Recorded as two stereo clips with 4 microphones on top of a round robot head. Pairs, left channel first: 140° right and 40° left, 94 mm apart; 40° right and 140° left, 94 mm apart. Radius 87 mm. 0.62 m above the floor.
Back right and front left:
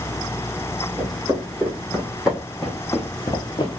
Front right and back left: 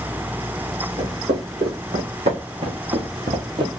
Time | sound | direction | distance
1.0 | footsteps | 110° left | 1.7 m